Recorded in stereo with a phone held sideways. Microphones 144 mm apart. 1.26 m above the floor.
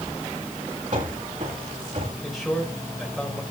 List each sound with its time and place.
0.9 s running footsteps: 60° right (ahead or behind), 8.5 m; by 2.1 s 65° right (ahead or behind), 10 m
2.2 s a man speaking: centre (ahead or behind), 4.5 m